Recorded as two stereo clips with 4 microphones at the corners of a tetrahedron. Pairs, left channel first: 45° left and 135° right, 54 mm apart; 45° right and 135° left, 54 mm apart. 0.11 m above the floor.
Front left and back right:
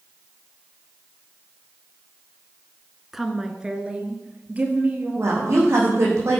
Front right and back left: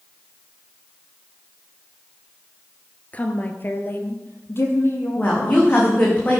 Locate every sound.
3.1 s a woman speaking: 50° right, 1.4 m; by 5.9 s 80° right, 4 m
5.2 s a woman speaking: 105° right, 5.5 m